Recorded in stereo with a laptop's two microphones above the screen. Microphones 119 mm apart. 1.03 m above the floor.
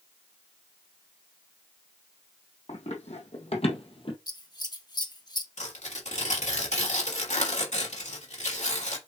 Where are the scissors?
35° left (ahead or behind), 1.3 m.